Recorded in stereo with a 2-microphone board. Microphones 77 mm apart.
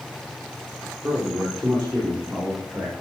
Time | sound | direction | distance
1.0 | a man speaking | centre (ahead or behind) | 5 m